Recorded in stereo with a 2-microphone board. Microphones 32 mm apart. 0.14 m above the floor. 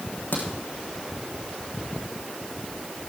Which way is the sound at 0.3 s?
70° left (ahead or behind).